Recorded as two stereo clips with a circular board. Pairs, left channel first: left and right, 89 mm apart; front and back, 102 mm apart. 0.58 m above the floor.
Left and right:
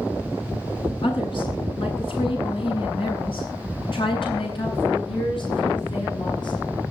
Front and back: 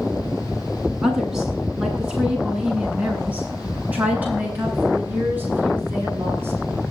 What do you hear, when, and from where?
1.0 s a woman speaking: 95° left, 7.5 m; by 6.6 s 115° left, 9.5 m